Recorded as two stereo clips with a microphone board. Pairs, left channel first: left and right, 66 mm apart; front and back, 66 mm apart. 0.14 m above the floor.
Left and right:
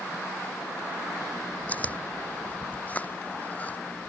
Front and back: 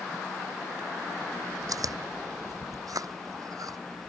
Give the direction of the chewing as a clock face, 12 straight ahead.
7 o'clock.